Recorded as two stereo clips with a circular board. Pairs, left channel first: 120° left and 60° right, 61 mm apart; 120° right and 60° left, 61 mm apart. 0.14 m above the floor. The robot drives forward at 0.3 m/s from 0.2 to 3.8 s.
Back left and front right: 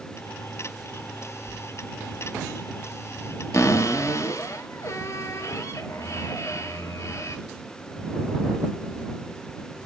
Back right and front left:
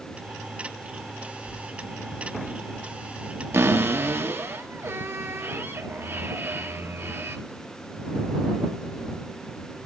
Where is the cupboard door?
100° left, 1.8 m; by 7.4 s 105° left, 1.8 m.